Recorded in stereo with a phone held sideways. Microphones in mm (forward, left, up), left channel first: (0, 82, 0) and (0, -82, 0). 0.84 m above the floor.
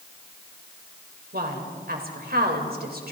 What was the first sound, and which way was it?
A woman speaking, 70° right (ahead or behind).